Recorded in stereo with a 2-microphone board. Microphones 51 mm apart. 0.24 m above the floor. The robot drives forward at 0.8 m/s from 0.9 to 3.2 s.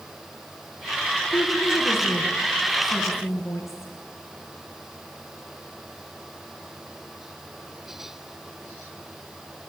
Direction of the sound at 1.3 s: 55° left (ahead or behind).